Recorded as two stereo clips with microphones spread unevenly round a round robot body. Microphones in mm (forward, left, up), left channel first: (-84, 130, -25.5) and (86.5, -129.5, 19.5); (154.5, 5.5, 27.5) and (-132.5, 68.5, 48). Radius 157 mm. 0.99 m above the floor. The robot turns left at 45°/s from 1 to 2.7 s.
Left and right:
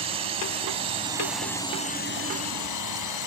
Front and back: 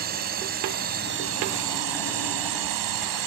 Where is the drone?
130° right; by 3.3 s 155° left.